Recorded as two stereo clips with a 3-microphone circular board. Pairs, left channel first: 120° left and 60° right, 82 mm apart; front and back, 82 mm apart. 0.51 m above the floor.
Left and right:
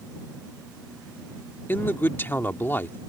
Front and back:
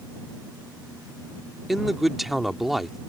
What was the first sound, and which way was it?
A man speaking, 95° left.